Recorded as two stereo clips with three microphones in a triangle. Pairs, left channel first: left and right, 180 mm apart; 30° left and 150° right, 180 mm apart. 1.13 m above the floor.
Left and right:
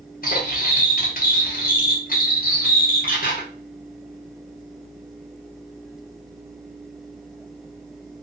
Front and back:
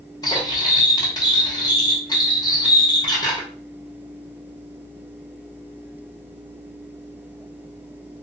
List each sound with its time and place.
0.2 s cutlery clinking: 90° left, 0.7 m